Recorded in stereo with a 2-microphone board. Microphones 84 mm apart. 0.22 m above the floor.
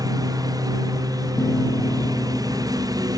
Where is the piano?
30° left (ahead or behind).